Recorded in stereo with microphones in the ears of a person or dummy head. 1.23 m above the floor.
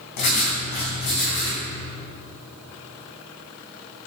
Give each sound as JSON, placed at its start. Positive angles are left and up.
{"t": 0.2, "sound": "writing", "side_deg": 50, "distance_m": 5.5}